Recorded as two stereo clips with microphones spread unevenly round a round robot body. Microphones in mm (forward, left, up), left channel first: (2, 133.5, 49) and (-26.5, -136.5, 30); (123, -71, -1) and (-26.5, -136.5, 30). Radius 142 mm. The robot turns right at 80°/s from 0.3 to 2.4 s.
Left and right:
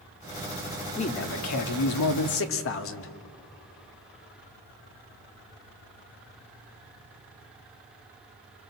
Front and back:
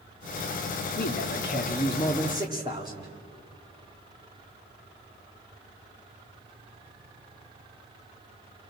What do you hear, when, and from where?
1.0 s a man speaking: 10° left, 1.8 m; by 3.1 s 125° left, 1.8 m